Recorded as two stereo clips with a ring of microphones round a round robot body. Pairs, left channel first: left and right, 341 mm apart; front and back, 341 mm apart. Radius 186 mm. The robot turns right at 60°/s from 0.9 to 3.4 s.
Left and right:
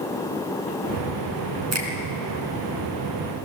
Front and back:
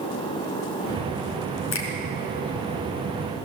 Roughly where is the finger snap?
Ahead right.